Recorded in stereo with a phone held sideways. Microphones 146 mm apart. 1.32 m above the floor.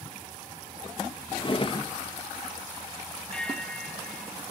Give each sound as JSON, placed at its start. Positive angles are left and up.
{"t": 1.4, "sound": "a drawer", "side_deg": 35, "distance_m": 0.7}
{"t": 3.3, "sound": "a bell", "side_deg": 5, "distance_m": 1.5}